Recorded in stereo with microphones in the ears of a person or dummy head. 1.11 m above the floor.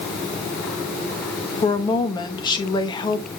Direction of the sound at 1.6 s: 20° left (ahead or behind).